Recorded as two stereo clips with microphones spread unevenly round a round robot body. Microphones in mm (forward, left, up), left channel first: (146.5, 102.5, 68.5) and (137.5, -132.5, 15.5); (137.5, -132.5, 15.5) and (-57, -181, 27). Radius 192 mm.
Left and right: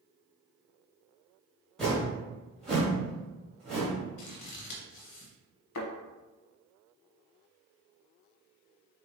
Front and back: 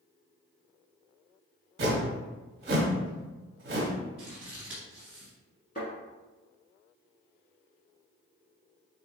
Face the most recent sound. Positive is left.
turn(degrees=85)